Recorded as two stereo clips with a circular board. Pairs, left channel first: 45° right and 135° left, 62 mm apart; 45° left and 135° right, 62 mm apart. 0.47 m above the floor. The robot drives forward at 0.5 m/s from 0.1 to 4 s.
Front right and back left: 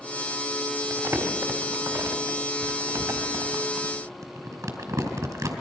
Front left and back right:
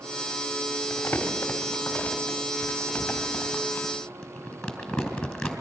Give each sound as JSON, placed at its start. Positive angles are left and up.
{"t": 0.9, "sound": "crumpling", "azimuth_deg": 100, "distance_m": 3.0}